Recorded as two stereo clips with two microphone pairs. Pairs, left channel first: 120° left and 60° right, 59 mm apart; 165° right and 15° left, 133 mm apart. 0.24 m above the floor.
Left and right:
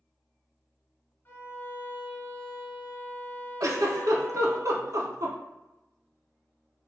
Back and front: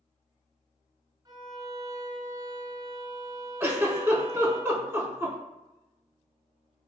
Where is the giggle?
55° right, 0.6 m.